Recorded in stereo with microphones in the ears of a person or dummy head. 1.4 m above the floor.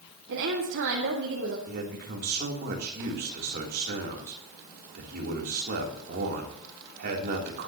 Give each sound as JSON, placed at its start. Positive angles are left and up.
{"t": 0.3, "sound": "a woman speaking", "side_deg": -65, "distance_m": 1.8}
{"t": 1.7, "sound": "a man speaking", "side_deg": -50, "distance_m": 3.5}